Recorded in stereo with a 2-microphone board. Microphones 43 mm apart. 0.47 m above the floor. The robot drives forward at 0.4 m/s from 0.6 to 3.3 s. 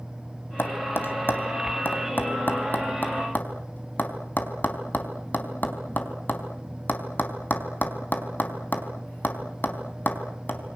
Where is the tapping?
55° left (ahead or behind), 3 m; by 10.8 s 45° left (ahead or behind), 3.5 m.